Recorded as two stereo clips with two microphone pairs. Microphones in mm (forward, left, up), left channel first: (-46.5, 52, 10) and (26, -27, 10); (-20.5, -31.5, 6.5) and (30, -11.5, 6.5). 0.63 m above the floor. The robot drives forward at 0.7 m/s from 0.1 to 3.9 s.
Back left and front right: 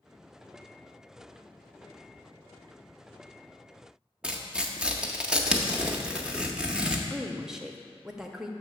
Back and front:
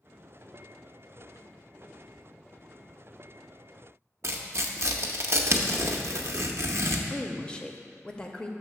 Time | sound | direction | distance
4.2 | tearing paper | 35° left | 0.6 m
7.1 | a woman speaking | 130° right | 0.5 m